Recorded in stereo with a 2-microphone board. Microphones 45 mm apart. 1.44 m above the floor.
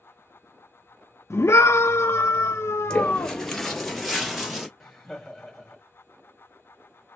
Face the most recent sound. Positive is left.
turn(degrees=5)  # may be behind; listen again after turning